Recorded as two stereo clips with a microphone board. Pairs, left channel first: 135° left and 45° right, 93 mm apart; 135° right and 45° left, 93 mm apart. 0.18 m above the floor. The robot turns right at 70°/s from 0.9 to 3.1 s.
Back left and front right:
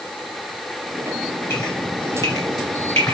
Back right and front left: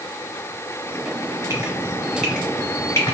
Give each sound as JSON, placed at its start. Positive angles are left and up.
{"t": 1.5, "sound": "dripping", "azimuth_deg": 85, "distance_m": 1.6}